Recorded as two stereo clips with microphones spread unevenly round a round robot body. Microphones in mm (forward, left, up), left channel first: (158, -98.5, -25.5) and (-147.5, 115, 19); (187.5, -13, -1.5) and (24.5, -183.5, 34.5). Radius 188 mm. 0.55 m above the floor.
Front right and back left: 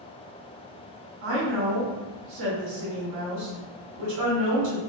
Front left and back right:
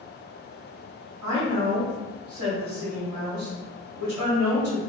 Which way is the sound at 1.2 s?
165° left.